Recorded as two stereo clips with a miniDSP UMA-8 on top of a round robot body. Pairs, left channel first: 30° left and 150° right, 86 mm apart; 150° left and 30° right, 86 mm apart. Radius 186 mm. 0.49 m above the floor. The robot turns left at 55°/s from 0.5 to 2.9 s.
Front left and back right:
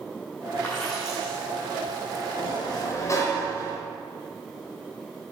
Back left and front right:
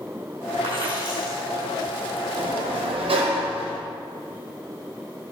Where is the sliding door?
Straight ahead, 0.9 m; by 3.8 s 25° right, 0.9 m.